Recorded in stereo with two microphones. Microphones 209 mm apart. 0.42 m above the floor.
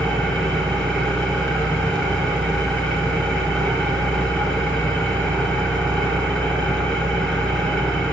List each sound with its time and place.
0.0 s an engine running: 5° left (ahead or behind), 4 m